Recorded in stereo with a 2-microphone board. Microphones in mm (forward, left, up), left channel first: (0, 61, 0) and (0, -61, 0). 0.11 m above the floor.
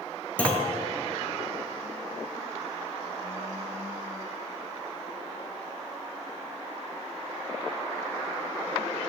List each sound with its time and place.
0.4 s a clunk: 10° left (ahead or behind), 0.7 m